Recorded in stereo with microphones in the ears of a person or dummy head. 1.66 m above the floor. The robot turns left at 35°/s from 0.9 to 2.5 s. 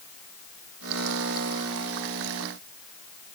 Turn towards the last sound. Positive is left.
No sound to turn to.